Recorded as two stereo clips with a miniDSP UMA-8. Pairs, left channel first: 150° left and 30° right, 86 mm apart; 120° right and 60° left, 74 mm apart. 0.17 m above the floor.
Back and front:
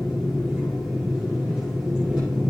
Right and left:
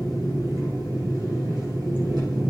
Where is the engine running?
45° left, 7 m.